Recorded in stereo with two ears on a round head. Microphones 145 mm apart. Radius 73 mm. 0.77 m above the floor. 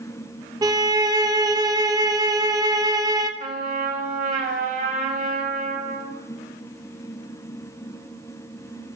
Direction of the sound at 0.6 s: 25° right (ahead or behind).